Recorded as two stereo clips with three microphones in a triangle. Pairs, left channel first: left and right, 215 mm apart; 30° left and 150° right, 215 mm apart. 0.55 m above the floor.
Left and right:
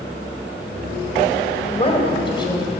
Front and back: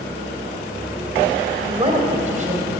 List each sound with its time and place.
1.6 s a woman speaking: 145° left, 2 m; by 2.7 s 160° left, 3 m